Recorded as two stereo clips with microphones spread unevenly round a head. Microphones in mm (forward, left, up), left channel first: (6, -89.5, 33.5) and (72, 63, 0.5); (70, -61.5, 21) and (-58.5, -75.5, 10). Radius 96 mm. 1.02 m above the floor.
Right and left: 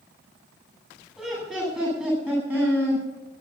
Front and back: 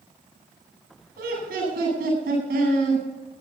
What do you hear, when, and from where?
1.2 s laughter: 155° left, 9 m; by 3.0 s 145° left, 9 m